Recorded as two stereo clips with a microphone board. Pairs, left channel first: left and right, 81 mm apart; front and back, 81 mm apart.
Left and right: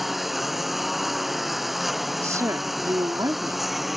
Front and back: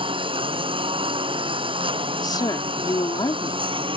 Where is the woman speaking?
35° right.